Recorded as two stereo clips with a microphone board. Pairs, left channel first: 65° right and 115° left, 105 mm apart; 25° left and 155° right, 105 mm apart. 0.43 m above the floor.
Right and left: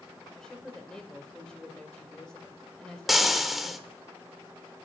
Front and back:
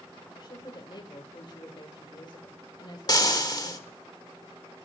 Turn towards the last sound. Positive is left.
turn(degrees=25)